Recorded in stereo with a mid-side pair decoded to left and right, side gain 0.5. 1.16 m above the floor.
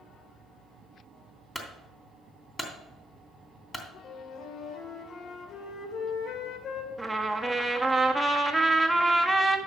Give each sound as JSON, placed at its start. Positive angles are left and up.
{"t": 1.6, "sound": "a clunk", "azimuth_deg": 15, "distance_m": 3.0}
{"t": 4.0, "sound": "a flute", "azimuth_deg": 65, "distance_m": 2.0}
{"t": 7.0, "sound": "a trumpet", "azimuth_deg": -5, "distance_m": 1.4}